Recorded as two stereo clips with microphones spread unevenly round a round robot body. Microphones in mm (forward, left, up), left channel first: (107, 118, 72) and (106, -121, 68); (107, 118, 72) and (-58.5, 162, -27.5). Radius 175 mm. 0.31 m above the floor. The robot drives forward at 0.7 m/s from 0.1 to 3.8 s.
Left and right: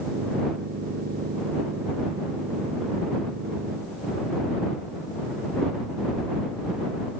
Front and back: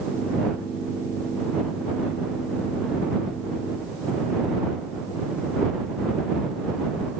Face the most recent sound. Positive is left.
No sound to turn to.